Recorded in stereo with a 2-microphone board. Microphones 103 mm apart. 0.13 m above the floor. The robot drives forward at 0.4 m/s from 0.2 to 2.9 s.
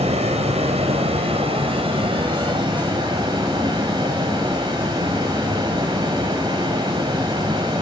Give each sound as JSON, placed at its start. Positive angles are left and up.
{"t": 0.0, "sound": "running water", "side_deg": -85, "distance_m": 1.1}